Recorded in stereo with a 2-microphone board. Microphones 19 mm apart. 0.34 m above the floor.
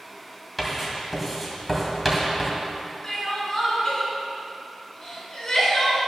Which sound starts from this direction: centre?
Writing, at 0.6 s.